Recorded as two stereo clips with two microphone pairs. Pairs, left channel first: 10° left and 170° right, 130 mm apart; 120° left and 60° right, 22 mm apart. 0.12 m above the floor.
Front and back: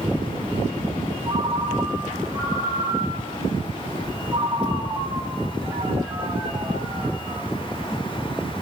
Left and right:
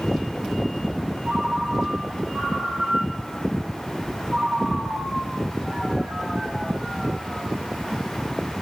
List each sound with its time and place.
1.2 s a ringtone: 95° right, 2 m